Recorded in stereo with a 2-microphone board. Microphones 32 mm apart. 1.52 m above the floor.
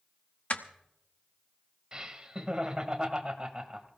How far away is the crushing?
About 1.0 m.